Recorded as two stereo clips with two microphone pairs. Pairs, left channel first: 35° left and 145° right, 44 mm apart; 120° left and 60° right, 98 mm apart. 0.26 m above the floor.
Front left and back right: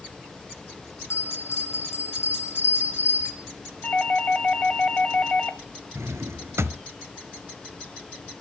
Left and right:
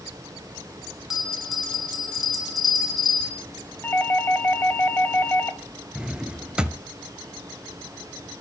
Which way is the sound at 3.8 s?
70° left.